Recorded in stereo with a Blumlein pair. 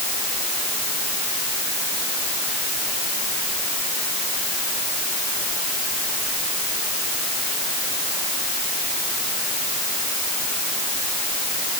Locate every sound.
Only background noise.